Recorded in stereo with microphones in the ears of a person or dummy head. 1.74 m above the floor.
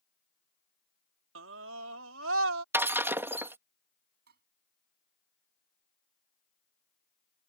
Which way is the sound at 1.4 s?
80° right.